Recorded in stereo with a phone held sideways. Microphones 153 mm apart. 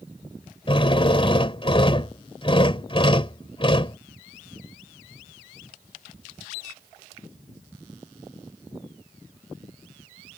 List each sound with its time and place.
0.7 s a drill: 35° left (ahead or behind)